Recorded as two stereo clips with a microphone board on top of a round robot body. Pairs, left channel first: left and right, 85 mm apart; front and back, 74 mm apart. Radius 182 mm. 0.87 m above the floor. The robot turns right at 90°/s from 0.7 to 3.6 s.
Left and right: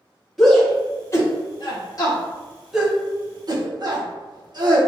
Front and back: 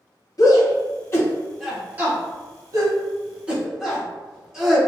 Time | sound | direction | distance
0.4 | a shout | 5° left | 1.4 m